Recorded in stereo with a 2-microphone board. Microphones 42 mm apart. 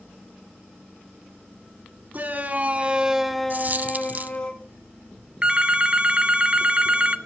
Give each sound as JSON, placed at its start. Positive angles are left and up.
{"t": 2.1, "sound": "a shout", "side_deg": -40, "distance_m": 1.8}
{"t": 3.5, "sound": "a dropped coin", "side_deg": -40, "distance_m": 0.6}
{"t": 5.4, "sound": "a phone ringing", "side_deg": -20, "distance_m": 0.6}